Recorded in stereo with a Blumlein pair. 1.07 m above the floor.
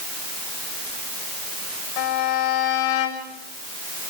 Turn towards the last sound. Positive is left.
turn(degrees=40)